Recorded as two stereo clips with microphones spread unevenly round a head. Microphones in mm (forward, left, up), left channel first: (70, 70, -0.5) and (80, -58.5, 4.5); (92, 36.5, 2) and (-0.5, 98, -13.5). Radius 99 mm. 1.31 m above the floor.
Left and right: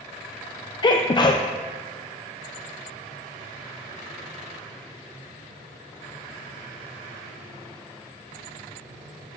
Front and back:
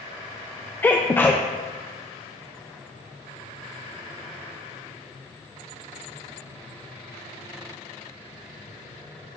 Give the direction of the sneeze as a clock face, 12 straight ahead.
11 o'clock.